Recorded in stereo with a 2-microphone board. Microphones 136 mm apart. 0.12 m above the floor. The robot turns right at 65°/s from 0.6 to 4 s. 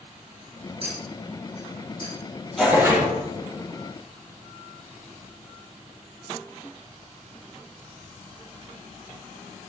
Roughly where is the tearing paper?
Behind.